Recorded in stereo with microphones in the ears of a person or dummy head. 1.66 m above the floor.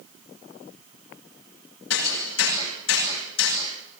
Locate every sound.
1.9 s hammering: 70° left (ahead or behind), 9.5 m